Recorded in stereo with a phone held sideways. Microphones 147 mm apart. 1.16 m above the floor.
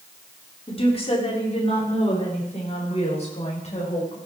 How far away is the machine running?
I don't hear a machine running.